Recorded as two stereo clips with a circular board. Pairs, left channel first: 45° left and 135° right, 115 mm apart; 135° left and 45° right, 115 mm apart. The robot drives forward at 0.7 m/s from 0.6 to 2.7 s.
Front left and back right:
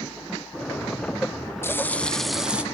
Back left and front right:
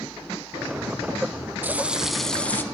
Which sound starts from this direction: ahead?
Frying, at 1.6 s.